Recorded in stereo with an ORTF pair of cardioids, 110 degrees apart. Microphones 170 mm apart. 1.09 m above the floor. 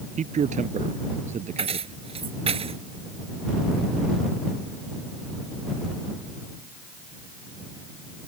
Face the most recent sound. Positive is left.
turn(degrees=-35)